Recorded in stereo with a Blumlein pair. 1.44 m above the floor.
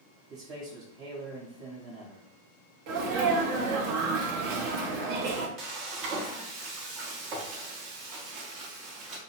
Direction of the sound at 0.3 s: 35° right.